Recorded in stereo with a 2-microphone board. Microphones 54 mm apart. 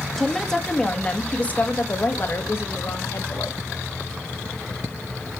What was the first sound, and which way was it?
A woman speaking, 5° left (ahead or behind).